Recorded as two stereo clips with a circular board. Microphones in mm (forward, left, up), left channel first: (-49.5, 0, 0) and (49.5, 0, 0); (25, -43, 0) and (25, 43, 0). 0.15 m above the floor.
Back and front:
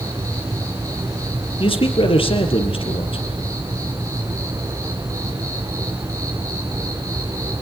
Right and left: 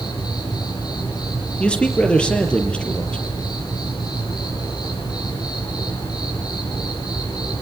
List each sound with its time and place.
0.0 s an insect: 55° right, 8 m
1.6 s a man speaking: 165° right, 4.5 m